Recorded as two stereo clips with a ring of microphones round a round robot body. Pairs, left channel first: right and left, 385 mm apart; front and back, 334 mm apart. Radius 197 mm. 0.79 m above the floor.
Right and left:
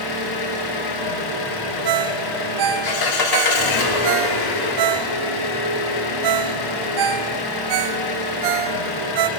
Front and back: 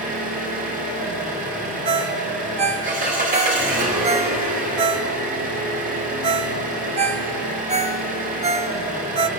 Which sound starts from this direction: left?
A ringtone, at 1.9 s.